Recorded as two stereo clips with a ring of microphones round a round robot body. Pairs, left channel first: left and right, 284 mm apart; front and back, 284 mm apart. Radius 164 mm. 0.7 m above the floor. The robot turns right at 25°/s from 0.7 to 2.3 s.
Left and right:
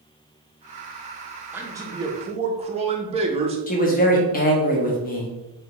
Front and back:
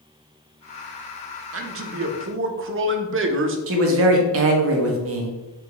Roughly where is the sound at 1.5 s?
Behind.